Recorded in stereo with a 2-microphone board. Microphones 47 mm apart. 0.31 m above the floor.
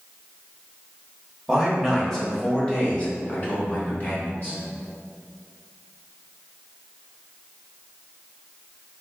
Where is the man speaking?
5° right (ahead or behind), 1.0 m; by 4.6 s 45° left (ahead or behind), 2 m.